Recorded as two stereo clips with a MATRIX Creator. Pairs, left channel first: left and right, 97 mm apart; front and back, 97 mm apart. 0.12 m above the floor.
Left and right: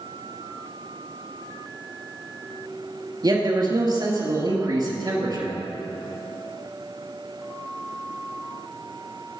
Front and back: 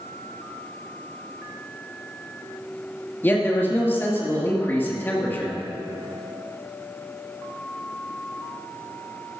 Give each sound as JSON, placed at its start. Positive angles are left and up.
{"t": 3.2, "sound": "a man speaking", "azimuth_deg": -65, "distance_m": 2.5}